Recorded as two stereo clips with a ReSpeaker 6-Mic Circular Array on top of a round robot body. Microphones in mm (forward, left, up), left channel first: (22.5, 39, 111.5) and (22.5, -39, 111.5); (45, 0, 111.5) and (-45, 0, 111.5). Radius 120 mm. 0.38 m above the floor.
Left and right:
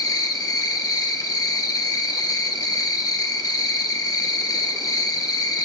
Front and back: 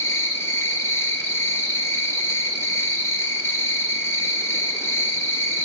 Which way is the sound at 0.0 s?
60° left.